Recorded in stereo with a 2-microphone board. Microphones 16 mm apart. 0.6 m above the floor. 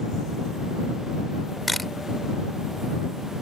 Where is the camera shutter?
5° left (ahead or behind).